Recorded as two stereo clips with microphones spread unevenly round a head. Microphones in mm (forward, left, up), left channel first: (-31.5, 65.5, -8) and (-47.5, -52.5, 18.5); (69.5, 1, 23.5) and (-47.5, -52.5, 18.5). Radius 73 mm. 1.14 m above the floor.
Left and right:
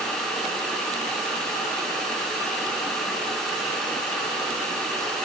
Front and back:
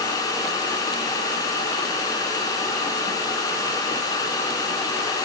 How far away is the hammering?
I don't hear hammering.